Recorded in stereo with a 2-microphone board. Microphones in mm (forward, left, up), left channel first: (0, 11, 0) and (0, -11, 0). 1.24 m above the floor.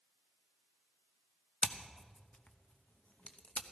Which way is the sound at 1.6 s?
75° left (ahead or behind).